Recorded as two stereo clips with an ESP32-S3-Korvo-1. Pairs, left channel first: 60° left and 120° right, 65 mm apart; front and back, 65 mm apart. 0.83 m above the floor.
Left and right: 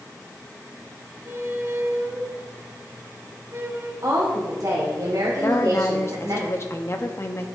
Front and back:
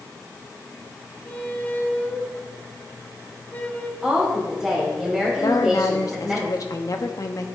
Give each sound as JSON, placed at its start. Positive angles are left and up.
{"t": 1.2, "sound": "a squeak", "azimuth_deg": -70, "distance_m": 0.9}
{"t": 4.0, "sound": "a woman speaking", "azimuth_deg": -85, "distance_m": 2.5}
{"t": 5.4, "sound": "a woman speaking", "azimuth_deg": 20, "distance_m": 1.0}